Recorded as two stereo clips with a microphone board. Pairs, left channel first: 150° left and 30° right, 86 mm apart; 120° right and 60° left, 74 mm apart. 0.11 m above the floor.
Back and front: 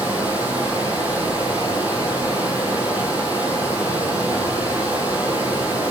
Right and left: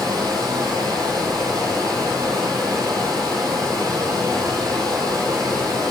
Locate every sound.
0.0 s running water: 40° left, 2 m